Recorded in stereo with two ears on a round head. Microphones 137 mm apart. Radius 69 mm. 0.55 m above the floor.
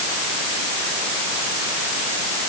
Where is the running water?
No running water in this recording.